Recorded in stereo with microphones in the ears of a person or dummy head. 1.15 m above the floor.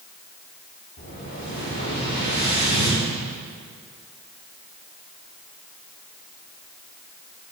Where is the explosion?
45° left (ahead or behind), 1.8 m.